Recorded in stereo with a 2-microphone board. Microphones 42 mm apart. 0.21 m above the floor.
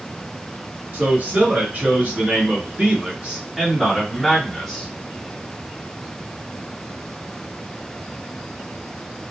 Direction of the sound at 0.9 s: 45° right (ahead or behind).